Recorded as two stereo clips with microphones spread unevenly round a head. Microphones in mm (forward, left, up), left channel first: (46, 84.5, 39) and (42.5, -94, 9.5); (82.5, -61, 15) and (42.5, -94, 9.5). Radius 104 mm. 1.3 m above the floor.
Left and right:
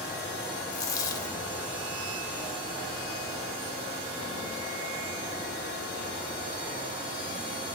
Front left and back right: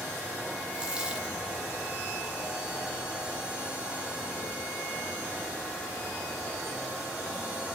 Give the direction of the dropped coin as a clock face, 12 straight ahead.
7 o'clock.